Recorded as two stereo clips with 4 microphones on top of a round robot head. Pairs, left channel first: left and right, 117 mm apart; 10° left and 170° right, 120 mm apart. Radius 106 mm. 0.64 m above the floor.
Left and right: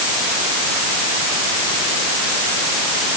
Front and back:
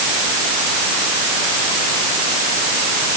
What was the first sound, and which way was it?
Only background noise.